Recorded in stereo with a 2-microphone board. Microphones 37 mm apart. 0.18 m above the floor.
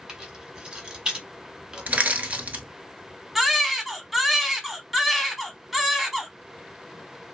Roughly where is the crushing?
Right.